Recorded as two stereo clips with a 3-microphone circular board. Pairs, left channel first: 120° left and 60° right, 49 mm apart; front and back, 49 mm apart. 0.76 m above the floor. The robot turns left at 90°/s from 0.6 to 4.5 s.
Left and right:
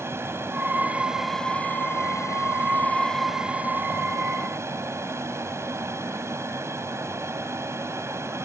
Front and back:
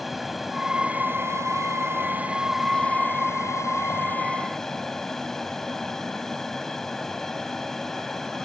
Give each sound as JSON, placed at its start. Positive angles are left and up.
{"t": 0.0, "sound": "an aircraft", "azimuth_deg": -90}